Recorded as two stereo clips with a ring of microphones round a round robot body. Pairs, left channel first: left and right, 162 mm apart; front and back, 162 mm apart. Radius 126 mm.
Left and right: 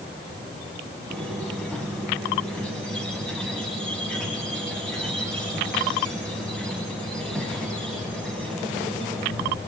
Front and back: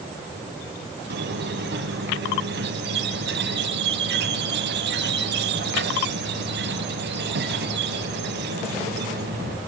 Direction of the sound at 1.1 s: 175° left.